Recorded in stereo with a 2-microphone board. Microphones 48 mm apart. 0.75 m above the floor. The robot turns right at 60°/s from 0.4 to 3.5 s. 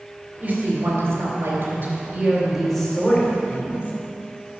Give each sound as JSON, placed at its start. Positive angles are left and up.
{"t": 0.4, "sound": "a woman speaking", "azimuth_deg": -140, "distance_m": 3.0}